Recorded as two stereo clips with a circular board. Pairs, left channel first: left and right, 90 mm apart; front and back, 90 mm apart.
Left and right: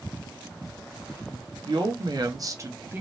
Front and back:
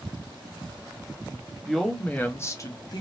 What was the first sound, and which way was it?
A woman speaking, 90° right.